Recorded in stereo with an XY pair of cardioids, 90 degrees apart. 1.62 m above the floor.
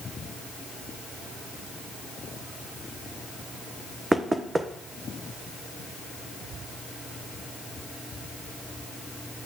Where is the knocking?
25° right, 1.2 m.